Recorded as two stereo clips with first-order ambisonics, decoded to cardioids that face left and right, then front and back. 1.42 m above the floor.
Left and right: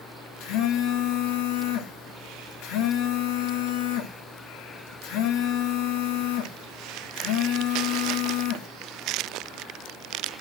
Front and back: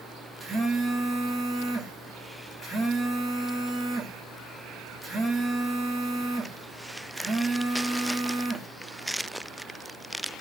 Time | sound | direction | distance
0.4 | a phone buzzing | 105° left | 1.8 m